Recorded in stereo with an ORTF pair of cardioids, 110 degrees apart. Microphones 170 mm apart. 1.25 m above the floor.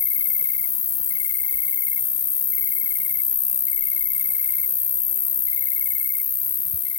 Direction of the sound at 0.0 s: 30° left.